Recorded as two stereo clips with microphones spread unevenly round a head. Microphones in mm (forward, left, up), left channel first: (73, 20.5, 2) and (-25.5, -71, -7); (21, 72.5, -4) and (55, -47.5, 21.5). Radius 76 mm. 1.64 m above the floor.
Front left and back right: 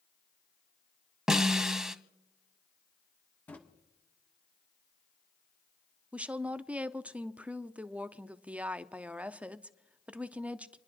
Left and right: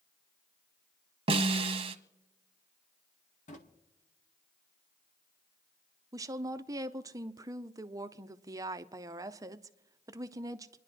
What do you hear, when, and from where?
1.3 s a snare drum: 50° right, 1.0 m
3.5 s a drawer: 115° left, 1.4 m
6.1 s a woman speaking: 60° right, 0.6 m